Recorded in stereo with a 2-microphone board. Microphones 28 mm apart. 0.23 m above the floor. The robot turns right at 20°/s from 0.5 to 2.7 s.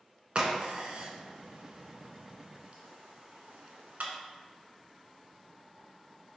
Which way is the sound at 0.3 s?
45° right (ahead or behind).